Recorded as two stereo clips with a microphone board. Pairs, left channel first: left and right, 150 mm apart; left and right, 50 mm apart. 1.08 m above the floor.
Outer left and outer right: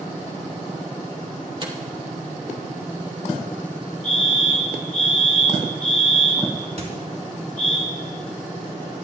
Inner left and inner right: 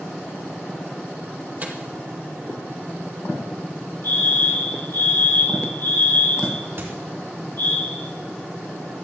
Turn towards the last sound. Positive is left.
turn(degrees=-50)  # may be behind; listen again after turning